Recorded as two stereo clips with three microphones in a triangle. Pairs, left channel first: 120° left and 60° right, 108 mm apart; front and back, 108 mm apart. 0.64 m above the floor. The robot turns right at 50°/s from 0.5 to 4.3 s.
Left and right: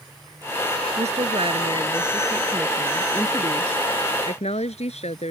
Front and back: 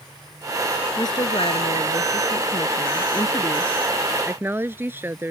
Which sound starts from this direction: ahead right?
A woman speaking, at 1.0 s.